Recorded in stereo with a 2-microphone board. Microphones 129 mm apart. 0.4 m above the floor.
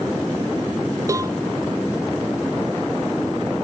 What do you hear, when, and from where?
1.1 s a cowbell: 25° right (ahead or behind)